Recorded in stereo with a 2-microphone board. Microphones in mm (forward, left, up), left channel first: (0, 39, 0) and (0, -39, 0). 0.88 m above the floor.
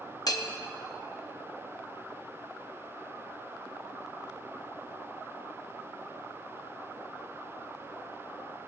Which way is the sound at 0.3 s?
50° left (ahead or behind).